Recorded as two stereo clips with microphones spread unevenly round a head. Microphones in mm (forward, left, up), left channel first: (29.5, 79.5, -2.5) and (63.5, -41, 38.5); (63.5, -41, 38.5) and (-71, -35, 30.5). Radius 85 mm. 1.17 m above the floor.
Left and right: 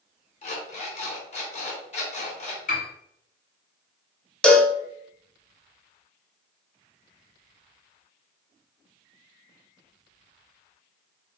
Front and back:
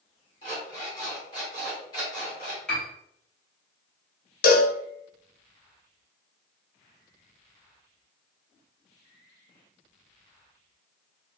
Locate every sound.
0.4 s an alarm clock: 65° left, 2 m
2.7 s a piano: 80° left, 1.5 m
4.4 s a cowbell: 25° left, 0.8 m